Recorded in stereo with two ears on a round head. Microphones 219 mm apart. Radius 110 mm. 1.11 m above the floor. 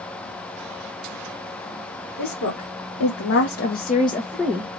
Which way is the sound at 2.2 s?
75° left (ahead or behind).